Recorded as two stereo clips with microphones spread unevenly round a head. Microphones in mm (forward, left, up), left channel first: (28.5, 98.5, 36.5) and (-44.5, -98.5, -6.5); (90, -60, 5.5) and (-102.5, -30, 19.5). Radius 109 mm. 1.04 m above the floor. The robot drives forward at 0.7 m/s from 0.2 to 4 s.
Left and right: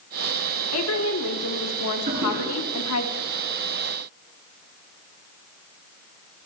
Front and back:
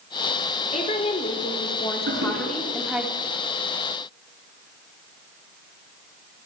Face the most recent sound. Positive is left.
turn(degrees=-165)